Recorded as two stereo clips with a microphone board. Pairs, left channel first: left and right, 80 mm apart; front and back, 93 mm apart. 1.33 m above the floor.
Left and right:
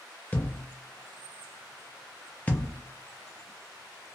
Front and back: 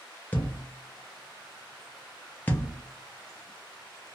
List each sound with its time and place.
0.3 s a thud: 40° left, 0.7 m